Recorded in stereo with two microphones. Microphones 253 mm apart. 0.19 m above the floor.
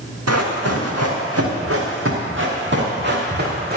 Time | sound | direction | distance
0.3 | running footsteps | 80° right | 3 m